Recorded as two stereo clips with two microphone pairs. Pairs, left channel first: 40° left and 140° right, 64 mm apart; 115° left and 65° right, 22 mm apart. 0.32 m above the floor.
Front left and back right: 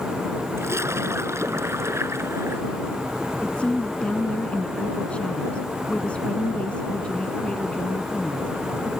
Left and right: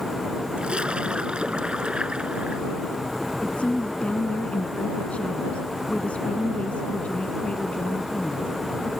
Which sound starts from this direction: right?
A splash, at 0.6 s.